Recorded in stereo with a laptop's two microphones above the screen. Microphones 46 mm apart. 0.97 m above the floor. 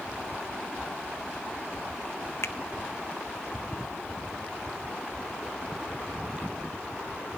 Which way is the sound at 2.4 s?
65° left (ahead or behind).